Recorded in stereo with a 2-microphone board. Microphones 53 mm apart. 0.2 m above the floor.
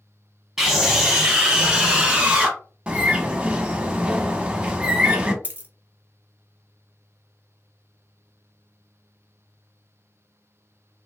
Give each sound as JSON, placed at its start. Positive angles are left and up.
{"t": 0.6, "sound": "a scream", "side_deg": -10, "distance_m": 1.2}
{"t": 2.9, "sound": "a bird", "side_deg": -20, "distance_m": 0.6}
{"t": 5.4, "sound": "a dropped coin", "side_deg": -35, "distance_m": 0.7}